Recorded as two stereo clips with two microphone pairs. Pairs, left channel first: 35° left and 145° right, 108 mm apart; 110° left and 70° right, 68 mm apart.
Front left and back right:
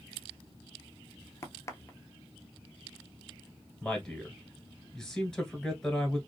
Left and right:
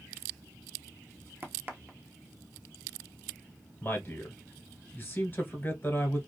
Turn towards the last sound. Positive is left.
turn(degrees=115)